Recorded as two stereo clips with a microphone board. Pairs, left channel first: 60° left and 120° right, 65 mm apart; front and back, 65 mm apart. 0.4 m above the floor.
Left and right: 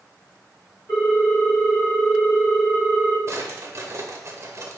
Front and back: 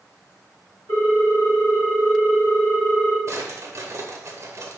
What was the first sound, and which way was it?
A ringtone, 165° left.